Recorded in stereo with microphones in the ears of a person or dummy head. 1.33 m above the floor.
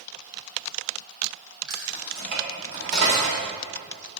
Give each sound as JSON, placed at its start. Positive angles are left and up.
{"t": 1.7, "sound": "keys jangling", "side_deg": -85, "distance_m": 3.5}